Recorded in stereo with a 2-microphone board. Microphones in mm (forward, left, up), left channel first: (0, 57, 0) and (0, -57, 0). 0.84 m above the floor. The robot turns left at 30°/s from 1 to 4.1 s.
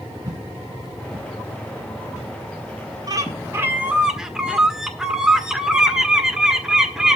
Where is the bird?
145° right, 1.5 m; by 7.2 s 175° right, 1.5 m.